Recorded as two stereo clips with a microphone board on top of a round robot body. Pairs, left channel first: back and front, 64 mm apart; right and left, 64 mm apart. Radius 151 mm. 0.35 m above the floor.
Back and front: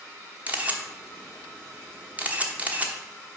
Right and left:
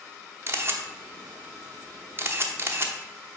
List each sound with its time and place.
0.5 s a camera shutter: 55° left, 1.2 m